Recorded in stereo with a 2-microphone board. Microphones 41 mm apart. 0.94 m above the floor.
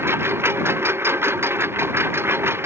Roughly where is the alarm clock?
No alarm clock in this recording.